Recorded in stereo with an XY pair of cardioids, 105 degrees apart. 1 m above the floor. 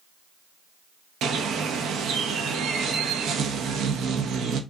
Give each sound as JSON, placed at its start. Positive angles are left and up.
{"t": 1.2, "sound": "a bird", "azimuth_deg": -70, "distance_m": 0.6}